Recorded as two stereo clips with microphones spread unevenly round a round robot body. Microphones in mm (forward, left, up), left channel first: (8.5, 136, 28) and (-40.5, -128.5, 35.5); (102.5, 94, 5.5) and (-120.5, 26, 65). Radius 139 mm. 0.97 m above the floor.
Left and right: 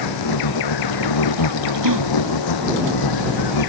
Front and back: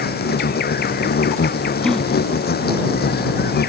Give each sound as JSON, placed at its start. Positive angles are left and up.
{"t": 0.0, "sound": "an insect", "azimuth_deg": 70}
{"t": 1.8, "sound": "a gasp", "azimuth_deg": -75}